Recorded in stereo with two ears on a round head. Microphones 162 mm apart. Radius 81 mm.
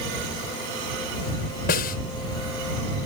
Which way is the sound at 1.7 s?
55° left (ahead or behind).